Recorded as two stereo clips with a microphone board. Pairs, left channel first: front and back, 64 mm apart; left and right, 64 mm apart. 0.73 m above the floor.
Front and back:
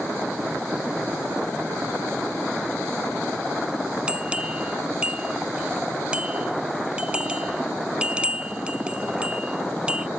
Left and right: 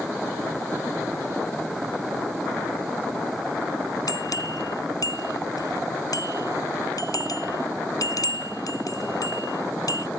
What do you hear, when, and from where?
4.1 s a bell: 105° left